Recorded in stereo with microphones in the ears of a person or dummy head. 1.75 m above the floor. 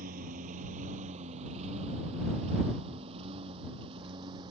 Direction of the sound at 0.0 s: 50° right (ahead or behind).